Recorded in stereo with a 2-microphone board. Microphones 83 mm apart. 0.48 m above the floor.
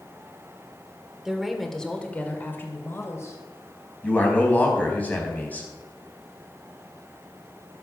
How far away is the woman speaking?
About 1.7 m.